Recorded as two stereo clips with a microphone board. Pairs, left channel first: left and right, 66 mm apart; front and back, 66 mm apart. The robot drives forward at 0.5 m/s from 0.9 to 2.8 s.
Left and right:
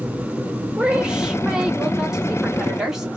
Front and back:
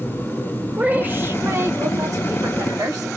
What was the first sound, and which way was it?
A woman speaking, 150° right.